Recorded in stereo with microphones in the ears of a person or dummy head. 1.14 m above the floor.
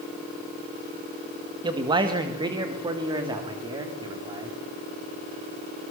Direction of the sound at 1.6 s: 25° right (ahead or behind).